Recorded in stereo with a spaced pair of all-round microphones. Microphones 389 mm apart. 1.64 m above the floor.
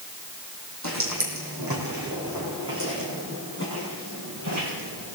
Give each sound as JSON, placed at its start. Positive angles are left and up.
{"t": 0.8, "sound": "footsteps", "side_deg": -45, "distance_m": 3.5}